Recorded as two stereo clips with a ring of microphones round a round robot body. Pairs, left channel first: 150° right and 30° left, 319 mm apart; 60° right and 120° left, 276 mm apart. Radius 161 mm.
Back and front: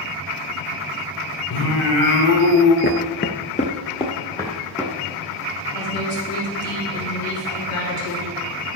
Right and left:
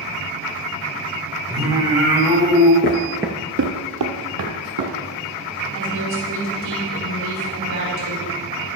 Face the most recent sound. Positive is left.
turn(degrees=170)